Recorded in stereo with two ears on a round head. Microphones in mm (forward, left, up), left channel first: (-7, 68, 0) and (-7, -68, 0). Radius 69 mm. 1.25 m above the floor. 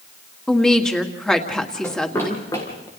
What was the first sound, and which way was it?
A woman speaking, 5° left (ahead or behind).